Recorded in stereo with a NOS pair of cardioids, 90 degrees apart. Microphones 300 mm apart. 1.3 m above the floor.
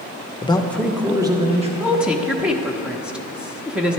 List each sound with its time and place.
0.4 s a man speaking: 20° left, 1.0 m; by 1.7 s 20° right, 1.8 m
1.8 s a woman speaking: 5° right, 1.1 m